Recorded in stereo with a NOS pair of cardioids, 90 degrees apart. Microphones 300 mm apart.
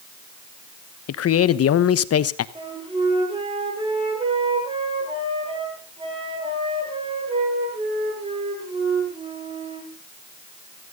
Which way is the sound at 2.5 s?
15° right.